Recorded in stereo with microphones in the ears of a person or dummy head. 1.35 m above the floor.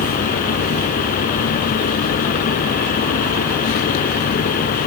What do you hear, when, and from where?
0.0 s a fan: 45° left (ahead or behind)